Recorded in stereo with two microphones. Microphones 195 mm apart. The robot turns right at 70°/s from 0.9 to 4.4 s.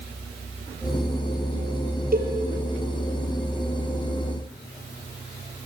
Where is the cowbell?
50° right (ahead or behind), 3.5 m; by 2.3 s 60° right (ahead or behind), 3.5 m.